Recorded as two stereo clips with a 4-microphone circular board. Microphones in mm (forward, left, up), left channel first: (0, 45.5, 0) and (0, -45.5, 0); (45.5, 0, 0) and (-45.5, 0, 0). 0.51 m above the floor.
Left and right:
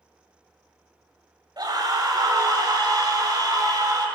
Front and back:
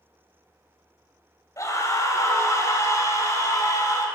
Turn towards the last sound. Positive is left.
turn(degrees=-50)